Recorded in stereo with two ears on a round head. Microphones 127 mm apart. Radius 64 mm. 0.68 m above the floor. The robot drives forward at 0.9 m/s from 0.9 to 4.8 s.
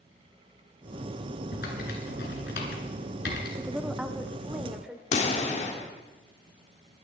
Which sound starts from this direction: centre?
A woman speaking, at 3.6 s.